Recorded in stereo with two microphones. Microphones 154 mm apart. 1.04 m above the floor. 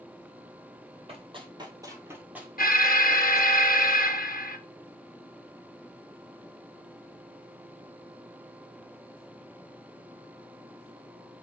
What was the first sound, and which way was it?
Running footsteps, 35° right (ahead or behind).